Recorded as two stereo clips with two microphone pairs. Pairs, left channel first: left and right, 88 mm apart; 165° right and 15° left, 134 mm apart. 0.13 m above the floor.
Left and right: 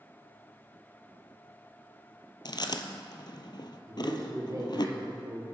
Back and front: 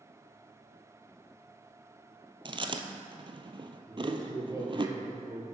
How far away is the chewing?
About 0.6 m.